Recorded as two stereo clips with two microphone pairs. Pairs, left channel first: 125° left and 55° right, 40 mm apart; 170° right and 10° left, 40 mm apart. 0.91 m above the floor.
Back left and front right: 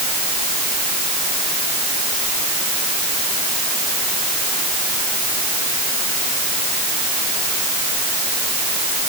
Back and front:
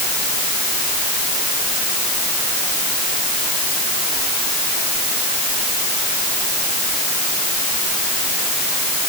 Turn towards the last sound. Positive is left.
No sound to turn to.